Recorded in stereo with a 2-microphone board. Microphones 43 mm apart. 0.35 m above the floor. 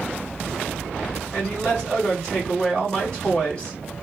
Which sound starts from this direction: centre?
A man speaking, at 1.3 s.